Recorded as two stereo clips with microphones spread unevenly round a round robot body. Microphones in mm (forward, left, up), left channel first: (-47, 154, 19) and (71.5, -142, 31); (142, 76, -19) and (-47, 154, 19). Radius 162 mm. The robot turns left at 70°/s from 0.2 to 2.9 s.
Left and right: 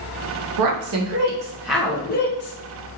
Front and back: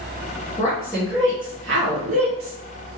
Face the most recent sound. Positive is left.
turn(degrees=120)